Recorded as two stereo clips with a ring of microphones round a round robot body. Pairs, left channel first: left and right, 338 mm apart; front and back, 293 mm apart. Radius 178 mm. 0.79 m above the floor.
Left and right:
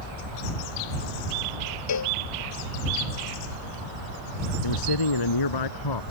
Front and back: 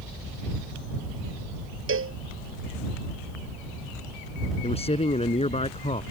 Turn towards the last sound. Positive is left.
turn(degrees=70)